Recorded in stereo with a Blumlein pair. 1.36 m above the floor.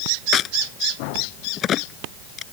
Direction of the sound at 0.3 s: 30° left.